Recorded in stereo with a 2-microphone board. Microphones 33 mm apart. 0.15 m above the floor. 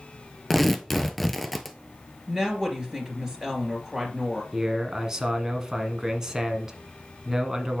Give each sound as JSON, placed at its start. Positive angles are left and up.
{"t": 0.5, "sound": "tearing paper", "side_deg": 5, "distance_m": 0.7}
{"t": 2.3, "sound": "a woman speaking", "side_deg": -25, "distance_m": 2.5}
{"t": 4.5, "sound": "a man speaking", "side_deg": -20, "distance_m": 1.4}